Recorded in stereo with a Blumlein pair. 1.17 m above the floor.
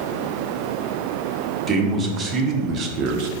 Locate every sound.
1.7 s a man speaking: 15° right, 1.9 m; by 3.3 s 45° right, 0.8 m